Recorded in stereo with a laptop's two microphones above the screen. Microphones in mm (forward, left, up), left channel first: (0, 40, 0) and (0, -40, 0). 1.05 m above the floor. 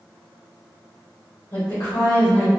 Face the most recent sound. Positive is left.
turn(degrees=40)  # may be behind; listen again after turning